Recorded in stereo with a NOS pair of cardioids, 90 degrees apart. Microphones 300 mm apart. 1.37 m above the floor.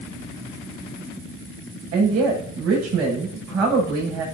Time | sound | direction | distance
1.9 | a woman speaking | 60° right | 6.5 m